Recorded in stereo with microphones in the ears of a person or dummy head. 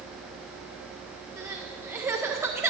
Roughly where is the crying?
Centre.